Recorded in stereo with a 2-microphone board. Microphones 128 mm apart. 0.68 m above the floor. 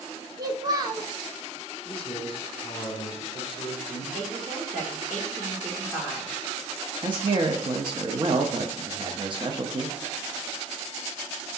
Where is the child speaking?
30° right (ahead or behind), 0.9 m.